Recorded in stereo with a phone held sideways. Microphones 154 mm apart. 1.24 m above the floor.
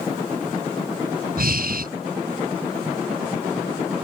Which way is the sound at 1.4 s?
75° right (ahead or behind).